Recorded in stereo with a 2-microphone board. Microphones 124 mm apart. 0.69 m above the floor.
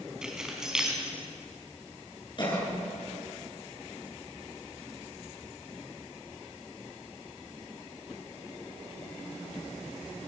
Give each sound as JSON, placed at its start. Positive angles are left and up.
{"t": 0.2, "sound": "keys jangling", "side_deg": -5, "distance_m": 4.5}
{"t": 2.4, "sound": "a cough", "side_deg": 40, "distance_m": 8.0}